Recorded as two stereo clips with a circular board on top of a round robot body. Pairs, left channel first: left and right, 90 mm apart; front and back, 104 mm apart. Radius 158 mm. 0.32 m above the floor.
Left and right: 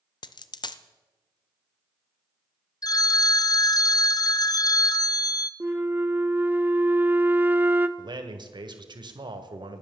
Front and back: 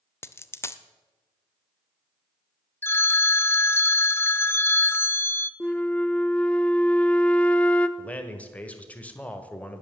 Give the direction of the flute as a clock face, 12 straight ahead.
2 o'clock.